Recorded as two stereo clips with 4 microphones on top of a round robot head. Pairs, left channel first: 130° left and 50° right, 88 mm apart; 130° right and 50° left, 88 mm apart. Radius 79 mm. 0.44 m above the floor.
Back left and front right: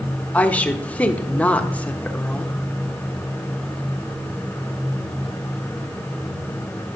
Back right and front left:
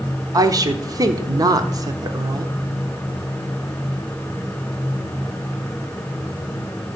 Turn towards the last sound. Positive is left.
turn(degrees=65)